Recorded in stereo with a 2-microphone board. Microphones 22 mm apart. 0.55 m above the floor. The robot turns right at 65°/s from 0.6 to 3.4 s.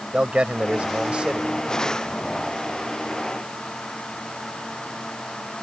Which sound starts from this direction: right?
A man speaking, at 0.1 s.